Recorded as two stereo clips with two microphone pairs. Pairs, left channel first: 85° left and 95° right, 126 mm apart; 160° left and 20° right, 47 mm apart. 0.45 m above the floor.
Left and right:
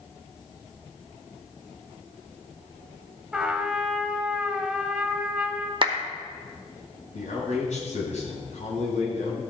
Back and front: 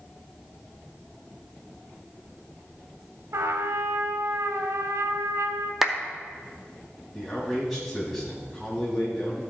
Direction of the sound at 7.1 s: 70° left.